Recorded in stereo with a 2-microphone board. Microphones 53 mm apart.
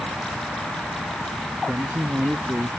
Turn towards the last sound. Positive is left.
turn(degrees=-45)  # may be behind; listen again after turning